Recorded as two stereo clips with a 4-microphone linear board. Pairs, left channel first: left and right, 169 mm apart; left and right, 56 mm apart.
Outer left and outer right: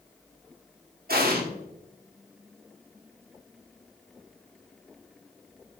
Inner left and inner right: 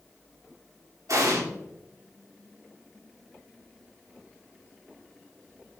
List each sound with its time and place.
1.1 s an explosion: 65° right (ahead or behind), 1.7 m